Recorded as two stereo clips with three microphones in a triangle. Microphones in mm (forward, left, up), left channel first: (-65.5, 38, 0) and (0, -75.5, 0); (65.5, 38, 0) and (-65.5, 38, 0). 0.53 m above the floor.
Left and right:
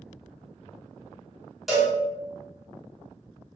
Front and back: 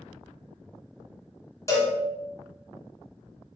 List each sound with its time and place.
1.7 s a cowbell: 25° left, 1.0 m